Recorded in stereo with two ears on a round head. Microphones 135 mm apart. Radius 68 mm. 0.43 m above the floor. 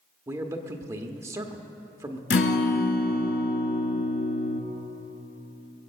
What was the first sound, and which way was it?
A man speaking, 20° right (ahead or behind).